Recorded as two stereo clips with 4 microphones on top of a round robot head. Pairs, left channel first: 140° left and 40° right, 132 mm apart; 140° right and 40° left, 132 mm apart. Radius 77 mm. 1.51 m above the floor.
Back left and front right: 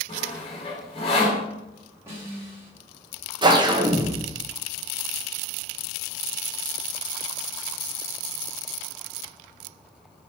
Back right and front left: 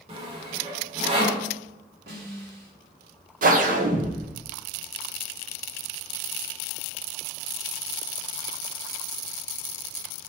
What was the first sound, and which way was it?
Sawing, 90° left.